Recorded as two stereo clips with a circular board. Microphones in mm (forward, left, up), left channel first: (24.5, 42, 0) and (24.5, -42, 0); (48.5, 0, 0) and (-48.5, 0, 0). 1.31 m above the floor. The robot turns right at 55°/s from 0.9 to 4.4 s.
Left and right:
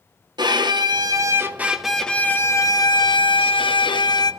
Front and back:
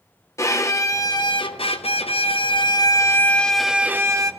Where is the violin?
55° right, 0.9 m; by 4.3 s 130° left, 0.9 m.